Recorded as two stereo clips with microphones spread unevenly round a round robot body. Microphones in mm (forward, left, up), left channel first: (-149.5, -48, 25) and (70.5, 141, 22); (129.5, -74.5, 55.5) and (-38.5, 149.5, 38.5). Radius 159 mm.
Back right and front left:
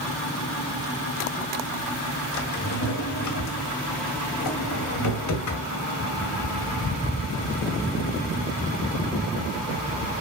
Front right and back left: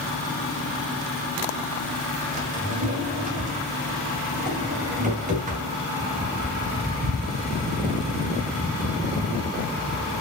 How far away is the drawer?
About 1.9 m.